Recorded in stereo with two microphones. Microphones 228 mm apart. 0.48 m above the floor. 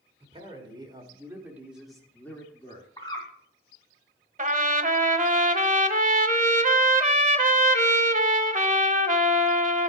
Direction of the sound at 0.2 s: 25° right (ahead or behind).